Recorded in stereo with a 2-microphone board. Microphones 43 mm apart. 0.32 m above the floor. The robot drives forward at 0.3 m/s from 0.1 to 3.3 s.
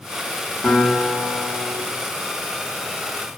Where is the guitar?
5° left (ahead or behind), 0.9 m.